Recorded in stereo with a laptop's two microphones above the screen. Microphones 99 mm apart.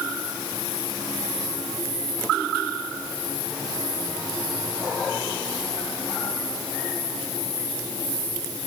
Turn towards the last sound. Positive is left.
No sound to turn to.